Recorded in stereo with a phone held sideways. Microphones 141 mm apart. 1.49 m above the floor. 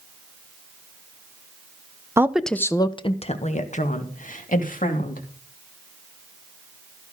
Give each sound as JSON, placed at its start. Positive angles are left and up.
{"t": 2.2, "sound": "a woman speaking", "side_deg": -20, "distance_m": 0.8}